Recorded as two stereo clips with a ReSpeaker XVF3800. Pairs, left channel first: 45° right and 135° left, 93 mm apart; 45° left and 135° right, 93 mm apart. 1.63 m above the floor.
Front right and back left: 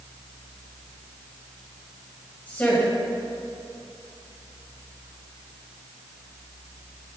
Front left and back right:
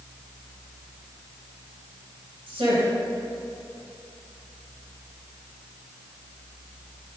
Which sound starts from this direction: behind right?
A woman speaking, at 2.5 s.